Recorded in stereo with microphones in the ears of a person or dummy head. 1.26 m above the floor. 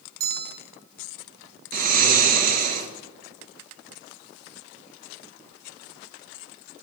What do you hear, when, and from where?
0.2 s a bell: 60° right (ahead or behind), 1.1 m
1.7 s snoring: 50° right (ahead or behind), 1.4 m